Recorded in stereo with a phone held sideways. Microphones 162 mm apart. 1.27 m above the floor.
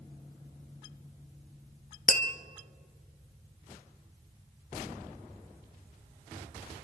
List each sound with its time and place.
2.1 s tapping: 55° left (ahead or behind), 0.9 m